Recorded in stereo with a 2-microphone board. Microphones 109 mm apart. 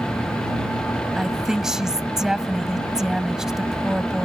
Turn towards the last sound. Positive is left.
turn(degrees=-5)  # may be behind; listen again after turning